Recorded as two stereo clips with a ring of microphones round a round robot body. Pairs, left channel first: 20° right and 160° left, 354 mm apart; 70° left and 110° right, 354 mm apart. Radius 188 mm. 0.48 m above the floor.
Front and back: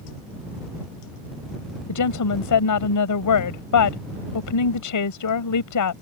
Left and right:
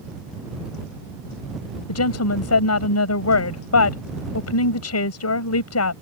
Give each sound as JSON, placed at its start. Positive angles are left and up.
{"t": 1.9, "sound": "a woman speaking", "azimuth_deg": 20}